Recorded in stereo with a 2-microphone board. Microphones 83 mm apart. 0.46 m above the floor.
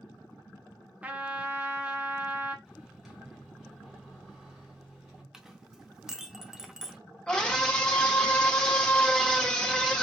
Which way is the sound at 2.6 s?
5° right (ahead or behind).